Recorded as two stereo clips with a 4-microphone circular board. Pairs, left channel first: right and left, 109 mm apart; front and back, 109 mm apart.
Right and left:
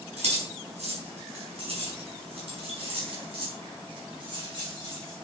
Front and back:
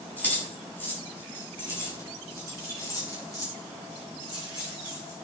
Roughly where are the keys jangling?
Left.